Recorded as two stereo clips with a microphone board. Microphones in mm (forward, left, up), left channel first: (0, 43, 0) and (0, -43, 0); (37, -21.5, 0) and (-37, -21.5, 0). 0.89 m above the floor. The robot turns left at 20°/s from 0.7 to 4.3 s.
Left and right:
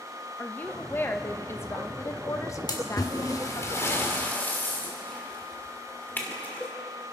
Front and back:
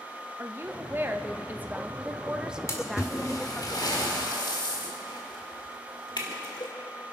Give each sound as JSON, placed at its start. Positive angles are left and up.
{"t": 0.4, "sound": "a woman speaking", "azimuth_deg": 145, "distance_m": 0.9}
{"t": 2.7, "sound": "a splash", "azimuth_deg": 50, "distance_m": 1.9}